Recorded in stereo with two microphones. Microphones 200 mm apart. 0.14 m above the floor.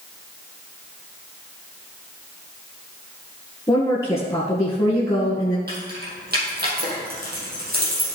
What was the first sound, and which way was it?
A woman speaking, 15° left (ahead or behind).